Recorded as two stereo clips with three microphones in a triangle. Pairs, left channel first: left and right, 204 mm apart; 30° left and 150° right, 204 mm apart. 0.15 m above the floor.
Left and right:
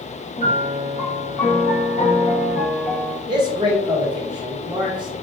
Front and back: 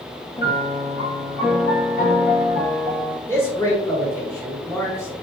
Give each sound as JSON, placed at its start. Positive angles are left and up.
{"t": 0.4, "sound": "a piano", "azimuth_deg": 50, "distance_m": 1.2}
{"t": 3.3, "sound": "a man speaking", "azimuth_deg": -40, "distance_m": 1.3}